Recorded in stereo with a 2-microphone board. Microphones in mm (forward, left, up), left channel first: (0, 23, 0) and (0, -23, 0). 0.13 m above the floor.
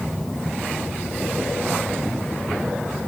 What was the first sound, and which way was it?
Only background noise.